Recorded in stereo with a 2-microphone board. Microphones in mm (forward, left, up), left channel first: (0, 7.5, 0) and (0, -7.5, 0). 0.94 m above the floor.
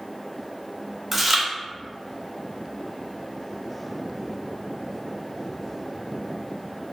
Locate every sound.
1.1 s chewing: 15° right (ahead or behind), 0.6 m